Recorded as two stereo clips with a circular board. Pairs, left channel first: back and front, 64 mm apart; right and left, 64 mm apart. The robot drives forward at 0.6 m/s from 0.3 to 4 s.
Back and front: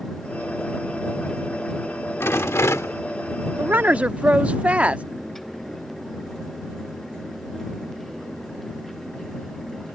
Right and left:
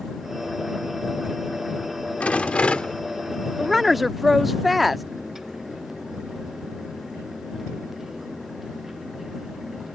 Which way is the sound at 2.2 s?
150° right.